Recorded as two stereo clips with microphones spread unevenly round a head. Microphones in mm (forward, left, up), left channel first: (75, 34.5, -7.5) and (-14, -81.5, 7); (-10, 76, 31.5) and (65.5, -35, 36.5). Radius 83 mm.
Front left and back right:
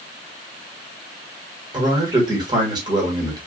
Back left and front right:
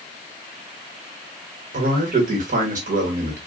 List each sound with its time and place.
1.7 s a man speaking: 65° right, 1.5 m